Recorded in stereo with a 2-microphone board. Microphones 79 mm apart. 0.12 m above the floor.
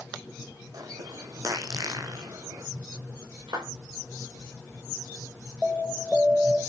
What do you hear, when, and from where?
0.7 s a bird: 50° right (ahead or behind), 2.0 m
3.5 s a clap: 70° right (ahead or behind), 9 m
5.6 s an alarm: centre (ahead or behind), 4 m